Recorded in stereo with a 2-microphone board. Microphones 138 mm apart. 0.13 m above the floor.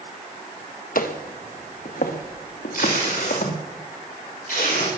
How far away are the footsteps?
About 1.5 m.